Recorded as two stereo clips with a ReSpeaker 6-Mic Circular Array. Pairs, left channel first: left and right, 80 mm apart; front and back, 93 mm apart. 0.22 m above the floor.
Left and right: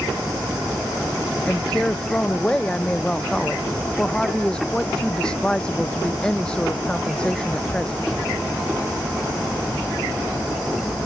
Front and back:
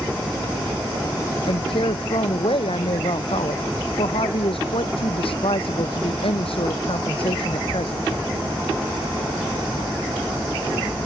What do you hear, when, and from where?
1.4 s a woman speaking: 10° left